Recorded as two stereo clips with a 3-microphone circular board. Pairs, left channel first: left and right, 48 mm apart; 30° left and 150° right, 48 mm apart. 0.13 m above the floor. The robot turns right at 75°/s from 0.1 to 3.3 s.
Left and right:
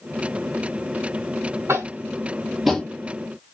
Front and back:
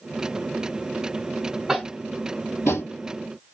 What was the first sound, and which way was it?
Tapping, 70° right.